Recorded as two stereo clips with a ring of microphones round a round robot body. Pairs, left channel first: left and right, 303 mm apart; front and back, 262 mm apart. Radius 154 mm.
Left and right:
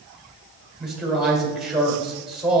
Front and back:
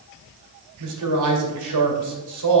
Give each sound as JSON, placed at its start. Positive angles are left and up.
{"t": 0.8, "sound": "a man speaking", "azimuth_deg": 180, "distance_m": 2.0}